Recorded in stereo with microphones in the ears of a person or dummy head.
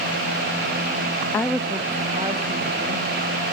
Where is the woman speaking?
15° left (ahead or behind), 0.6 m; by 3.1 s 35° right (ahead or behind), 2 m.